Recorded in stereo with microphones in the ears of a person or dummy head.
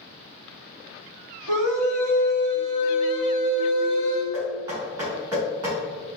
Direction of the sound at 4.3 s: 10° right (ahead or behind).